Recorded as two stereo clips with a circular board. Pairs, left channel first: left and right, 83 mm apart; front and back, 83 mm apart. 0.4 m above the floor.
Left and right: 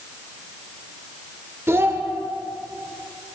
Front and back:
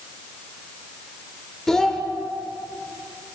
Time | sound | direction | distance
1.7 | a child speaking | 80° right | 0.6 m